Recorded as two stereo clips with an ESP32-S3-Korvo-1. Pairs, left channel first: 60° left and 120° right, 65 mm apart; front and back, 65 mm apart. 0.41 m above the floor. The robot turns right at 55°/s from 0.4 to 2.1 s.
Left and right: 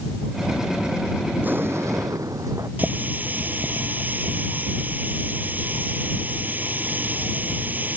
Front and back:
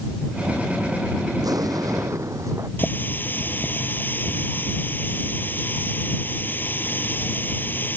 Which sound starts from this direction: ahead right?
A running tap, at 2.8 s.